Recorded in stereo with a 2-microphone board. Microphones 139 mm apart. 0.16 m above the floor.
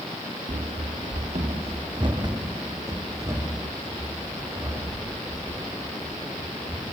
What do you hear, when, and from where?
0.5 s running footsteps: 80° right, 1.4 m; by 6.9 s 10° right (ahead or behind), 9.5 m